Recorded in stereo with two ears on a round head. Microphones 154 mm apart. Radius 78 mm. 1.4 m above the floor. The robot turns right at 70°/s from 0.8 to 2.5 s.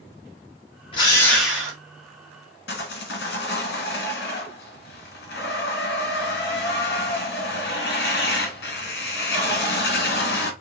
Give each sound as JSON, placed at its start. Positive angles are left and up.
{"t": 0.9, "sound": "a drill", "azimuth_deg": 145, "distance_m": 1.0}
{"t": 2.7, "sound": "sawing", "side_deg": 65, "distance_m": 1.0}